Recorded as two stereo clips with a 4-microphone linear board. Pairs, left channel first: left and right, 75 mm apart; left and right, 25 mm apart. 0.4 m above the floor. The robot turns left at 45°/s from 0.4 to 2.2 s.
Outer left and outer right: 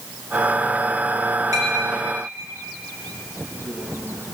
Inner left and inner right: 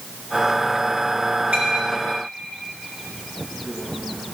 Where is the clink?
60° right (ahead or behind), 4 m; by 4.4 s 30° right (ahead or behind), 4 m.